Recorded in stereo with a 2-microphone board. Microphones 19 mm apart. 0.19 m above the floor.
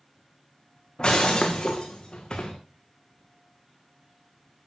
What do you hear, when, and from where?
1.0 s breaking glass: 40° left (ahead or behind), 2 m